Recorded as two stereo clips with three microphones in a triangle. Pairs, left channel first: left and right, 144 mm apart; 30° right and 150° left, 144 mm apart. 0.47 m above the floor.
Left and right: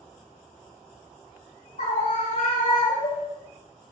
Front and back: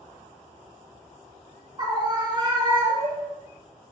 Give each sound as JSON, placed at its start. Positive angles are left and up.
{"t": 1.8, "sound": "a scream", "azimuth_deg": 95, "distance_m": 2.5}